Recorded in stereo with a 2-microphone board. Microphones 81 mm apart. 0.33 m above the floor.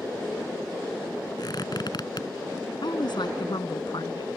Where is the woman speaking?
65° left (ahead or behind).